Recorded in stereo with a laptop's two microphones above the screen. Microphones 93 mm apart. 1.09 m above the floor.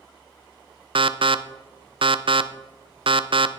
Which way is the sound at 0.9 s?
70° right (ahead or behind).